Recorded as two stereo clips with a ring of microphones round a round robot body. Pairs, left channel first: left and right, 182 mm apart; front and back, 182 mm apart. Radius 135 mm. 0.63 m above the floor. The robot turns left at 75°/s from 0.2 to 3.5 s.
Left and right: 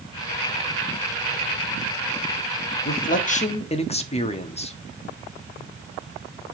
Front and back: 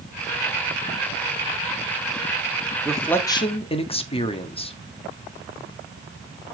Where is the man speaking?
95° left, 1.5 m; by 4.8 s 50° left, 1.5 m.